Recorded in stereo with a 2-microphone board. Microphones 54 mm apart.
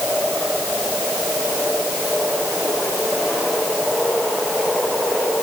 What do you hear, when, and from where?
Only background noise.